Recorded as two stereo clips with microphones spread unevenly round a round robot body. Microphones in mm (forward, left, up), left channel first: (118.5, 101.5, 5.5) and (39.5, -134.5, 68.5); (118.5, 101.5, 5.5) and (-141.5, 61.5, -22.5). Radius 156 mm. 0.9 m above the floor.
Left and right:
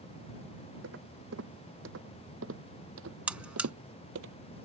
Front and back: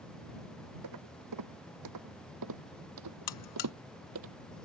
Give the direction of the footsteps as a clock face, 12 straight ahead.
5 o'clock.